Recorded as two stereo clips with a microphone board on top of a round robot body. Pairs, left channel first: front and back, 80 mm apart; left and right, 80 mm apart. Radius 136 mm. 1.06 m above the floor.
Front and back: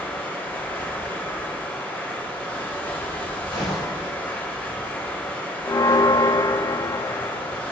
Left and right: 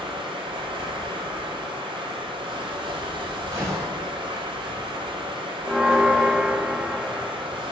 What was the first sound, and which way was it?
Running water, 70° right.